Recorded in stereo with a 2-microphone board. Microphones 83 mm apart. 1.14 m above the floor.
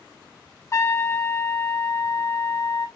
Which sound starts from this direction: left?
A trumpet, at 0.7 s.